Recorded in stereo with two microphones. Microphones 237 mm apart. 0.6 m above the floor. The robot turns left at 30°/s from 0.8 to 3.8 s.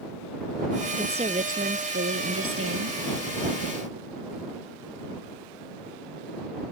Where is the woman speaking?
20° right; by 3.0 s 80° right.